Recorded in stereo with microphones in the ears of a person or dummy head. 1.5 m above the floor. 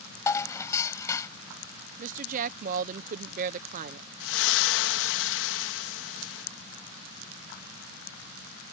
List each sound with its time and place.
0.3 s dishes clattering: 15° left (ahead or behind)
2.0 s a woman speaking: 50° right (ahead or behind)
4.2 s a splash: 75° left (ahead or behind)